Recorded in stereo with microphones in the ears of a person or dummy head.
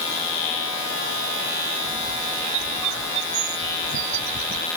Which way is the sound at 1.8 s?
65° right (ahead or behind).